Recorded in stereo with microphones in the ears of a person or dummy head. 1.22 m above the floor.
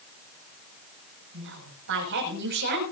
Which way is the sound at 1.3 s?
70° right (ahead or behind).